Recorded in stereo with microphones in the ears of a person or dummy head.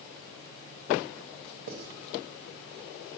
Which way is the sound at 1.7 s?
50° right (ahead or behind).